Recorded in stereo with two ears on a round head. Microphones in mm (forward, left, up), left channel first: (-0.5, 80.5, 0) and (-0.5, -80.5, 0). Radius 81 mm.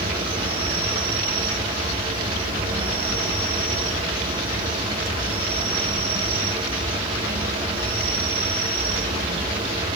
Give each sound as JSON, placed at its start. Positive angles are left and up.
{"t": 0.0, "sound": "an insect", "side_deg": -30, "distance_m": 9.0}